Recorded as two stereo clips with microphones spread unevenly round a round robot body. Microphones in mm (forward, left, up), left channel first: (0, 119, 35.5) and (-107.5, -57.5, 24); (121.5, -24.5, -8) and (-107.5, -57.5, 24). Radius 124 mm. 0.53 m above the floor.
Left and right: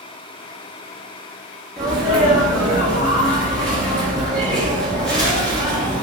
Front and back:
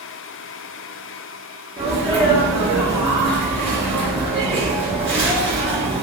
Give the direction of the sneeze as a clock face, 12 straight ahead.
7 o'clock.